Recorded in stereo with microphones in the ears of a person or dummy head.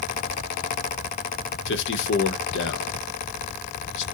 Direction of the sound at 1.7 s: 65° left (ahead or behind).